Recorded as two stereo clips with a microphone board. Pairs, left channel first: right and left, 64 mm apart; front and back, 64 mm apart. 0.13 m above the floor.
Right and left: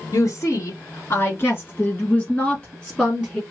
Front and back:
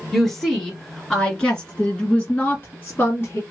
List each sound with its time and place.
0.1 s a woman speaking: 95° right, 2 m; by 3.4 s 5° right, 1.6 m